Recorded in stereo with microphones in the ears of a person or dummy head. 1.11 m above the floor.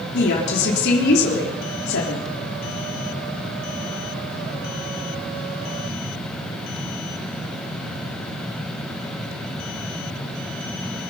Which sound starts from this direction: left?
A woman speaking, at 0.1 s.